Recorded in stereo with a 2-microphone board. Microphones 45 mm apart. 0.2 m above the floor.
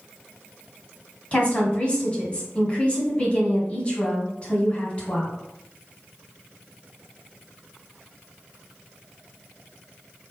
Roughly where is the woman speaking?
Left.